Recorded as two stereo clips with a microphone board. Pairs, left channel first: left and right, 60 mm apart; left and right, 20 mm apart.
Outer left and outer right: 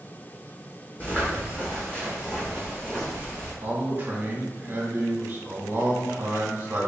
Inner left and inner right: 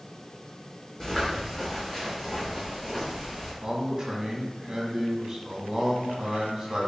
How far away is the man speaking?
About 1.1 m.